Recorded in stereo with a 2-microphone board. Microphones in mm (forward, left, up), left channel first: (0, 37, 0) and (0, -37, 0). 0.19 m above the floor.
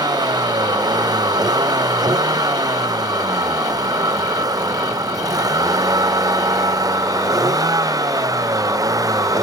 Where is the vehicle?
65° right (ahead or behind); by 9.4 s 55° right (ahead or behind).